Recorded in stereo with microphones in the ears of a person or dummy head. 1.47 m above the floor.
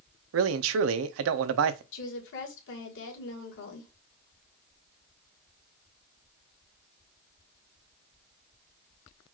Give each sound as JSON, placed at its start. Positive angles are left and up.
{"t": 0.3, "sound": "a man speaking", "side_deg": -70, "distance_m": 0.6}
{"t": 1.9, "sound": "a woman speaking", "side_deg": 70, "distance_m": 1.7}